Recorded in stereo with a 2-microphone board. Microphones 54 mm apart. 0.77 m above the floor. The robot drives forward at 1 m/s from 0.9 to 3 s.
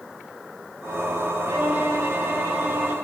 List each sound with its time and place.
1.5 s a violin: 50° right (ahead or behind), 2.5 m; by 2.9 s 30° right (ahead or behind), 3.5 m